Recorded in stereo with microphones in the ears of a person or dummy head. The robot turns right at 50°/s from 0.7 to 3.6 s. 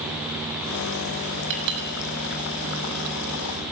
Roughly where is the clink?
Right.